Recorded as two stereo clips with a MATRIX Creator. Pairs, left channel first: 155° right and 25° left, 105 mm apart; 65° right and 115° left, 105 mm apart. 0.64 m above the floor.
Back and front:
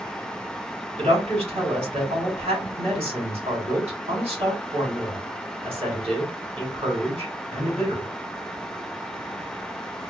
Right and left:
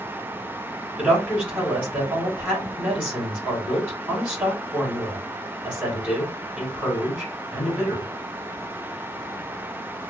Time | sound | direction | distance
1.0 | a woman speaking | 35° left | 2.5 m